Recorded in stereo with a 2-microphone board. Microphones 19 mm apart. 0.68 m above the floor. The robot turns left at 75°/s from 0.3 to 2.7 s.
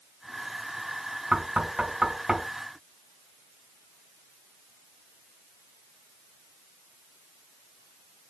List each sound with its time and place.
1.3 s knocking: 75° right (ahead or behind), 3 m; by 2.5 s 20° right (ahead or behind), 3 m